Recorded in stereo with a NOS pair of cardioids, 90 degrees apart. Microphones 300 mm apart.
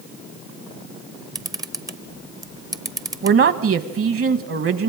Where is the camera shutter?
10° right, 0.8 m.